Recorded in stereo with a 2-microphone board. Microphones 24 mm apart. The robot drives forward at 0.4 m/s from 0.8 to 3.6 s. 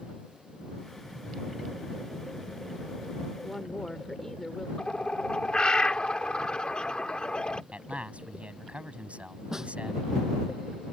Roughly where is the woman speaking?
Centre.